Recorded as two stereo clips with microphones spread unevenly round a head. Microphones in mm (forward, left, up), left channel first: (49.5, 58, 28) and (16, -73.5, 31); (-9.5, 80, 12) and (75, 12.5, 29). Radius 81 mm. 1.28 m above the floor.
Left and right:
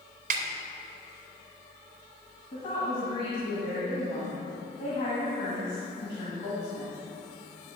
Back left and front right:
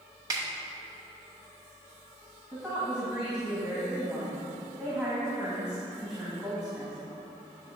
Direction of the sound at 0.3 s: 105° right.